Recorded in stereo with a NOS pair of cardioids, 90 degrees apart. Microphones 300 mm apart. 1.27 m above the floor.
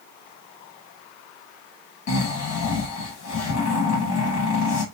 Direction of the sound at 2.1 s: 60° left.